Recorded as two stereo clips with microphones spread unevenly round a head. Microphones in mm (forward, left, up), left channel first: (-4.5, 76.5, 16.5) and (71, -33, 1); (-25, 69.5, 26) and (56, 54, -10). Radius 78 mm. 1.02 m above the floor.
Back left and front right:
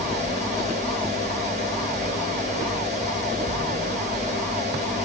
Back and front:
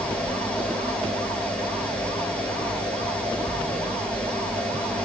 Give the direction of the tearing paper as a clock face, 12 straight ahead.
No tearing paper in this recording.